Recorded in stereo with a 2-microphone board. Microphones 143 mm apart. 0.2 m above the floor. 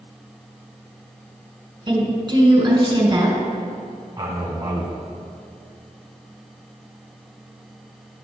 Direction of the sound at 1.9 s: 35° right (ahead or behind).